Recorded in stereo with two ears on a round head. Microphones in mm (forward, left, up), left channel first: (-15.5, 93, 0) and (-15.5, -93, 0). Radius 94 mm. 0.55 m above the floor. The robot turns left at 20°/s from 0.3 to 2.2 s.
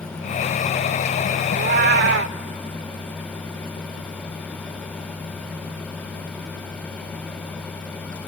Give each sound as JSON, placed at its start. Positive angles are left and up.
{"t": 1.5, "sound": "a cat meowing", "side_deg": -45, "distance_m": 0.6}